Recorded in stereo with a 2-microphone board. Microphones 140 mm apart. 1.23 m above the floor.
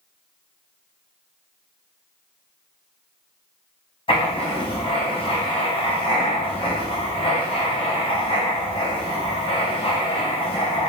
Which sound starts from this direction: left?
Writing, at 4.1 s.